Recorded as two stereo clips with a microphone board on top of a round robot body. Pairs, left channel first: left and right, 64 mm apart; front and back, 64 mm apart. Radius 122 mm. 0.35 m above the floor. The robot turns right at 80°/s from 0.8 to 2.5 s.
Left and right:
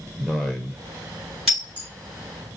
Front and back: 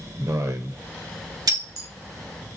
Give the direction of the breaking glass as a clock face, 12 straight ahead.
6 o'clock.